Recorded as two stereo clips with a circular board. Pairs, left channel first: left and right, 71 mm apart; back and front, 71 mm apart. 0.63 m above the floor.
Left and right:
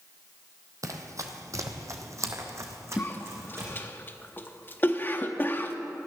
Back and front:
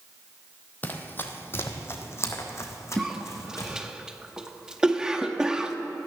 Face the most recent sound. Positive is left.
turn(degrees=70)